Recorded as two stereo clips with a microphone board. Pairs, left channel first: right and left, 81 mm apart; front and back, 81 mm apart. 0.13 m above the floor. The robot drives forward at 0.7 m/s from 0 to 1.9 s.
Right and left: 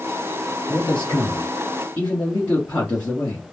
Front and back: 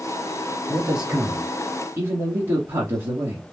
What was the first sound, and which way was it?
A man speaking, 100° right.